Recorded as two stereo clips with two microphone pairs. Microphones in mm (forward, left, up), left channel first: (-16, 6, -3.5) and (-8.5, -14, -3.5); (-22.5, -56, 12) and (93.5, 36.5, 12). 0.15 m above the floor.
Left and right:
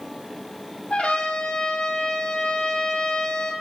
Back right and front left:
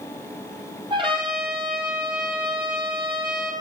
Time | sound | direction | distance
0.9 | a trumpet | 95° left | 1.2 m